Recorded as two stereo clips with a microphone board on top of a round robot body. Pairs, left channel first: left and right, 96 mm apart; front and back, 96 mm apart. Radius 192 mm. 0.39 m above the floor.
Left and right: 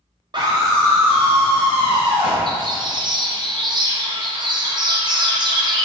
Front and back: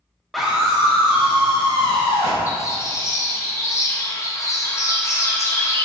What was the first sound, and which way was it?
A scream, 90° right.